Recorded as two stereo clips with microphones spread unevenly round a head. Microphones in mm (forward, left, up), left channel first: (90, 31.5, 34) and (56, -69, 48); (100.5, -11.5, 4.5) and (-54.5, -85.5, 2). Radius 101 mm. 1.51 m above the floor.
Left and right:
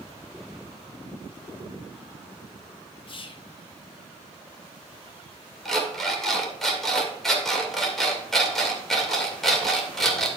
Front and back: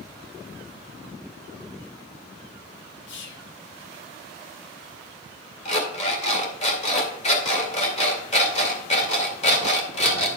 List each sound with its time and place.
3.1 s whispering: 30° left, 0.9 m
5.7 s an alarm clock: 20° right, 2 m